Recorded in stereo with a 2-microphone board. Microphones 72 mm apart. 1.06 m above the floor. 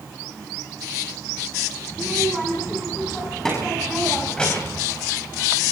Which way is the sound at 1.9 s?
Centre (ahead or behind).